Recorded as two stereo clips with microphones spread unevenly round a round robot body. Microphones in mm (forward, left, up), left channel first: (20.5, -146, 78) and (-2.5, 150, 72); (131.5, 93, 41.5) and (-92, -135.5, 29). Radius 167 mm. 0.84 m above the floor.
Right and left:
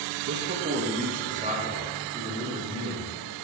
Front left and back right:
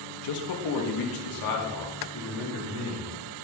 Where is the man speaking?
50° left, 1.2 m; by 3.1 s 20° left, 3 m.